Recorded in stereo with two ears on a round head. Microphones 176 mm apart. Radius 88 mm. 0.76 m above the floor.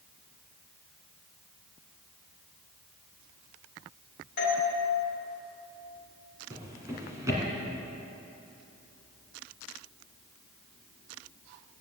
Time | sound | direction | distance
4.4 | a doorbell | 55° left (ahead or behind) | 2.0 m
6.5 | a drawer | 15° right (ahead or behind) | 2 m